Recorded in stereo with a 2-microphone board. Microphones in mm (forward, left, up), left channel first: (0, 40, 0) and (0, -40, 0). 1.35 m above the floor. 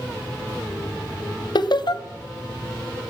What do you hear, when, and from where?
1.6 s laughter: 65° left (ahead or behind), 0.6 m